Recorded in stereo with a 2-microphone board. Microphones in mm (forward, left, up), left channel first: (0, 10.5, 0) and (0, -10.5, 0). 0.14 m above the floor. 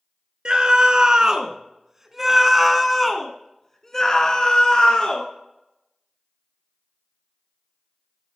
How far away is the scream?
About 1.8 m.